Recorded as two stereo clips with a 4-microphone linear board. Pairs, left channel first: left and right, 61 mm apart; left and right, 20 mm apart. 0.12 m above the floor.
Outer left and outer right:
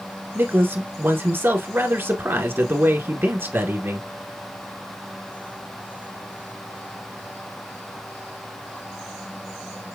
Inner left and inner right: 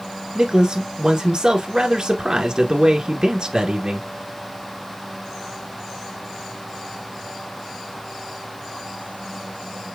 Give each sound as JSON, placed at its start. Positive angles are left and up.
{"t": 0.3, "sound": "a man speaking", "side_deg": -40, "distance_m": 1.7}